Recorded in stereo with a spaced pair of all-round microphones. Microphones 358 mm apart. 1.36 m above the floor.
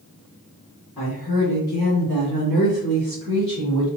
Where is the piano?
No piano in this recording.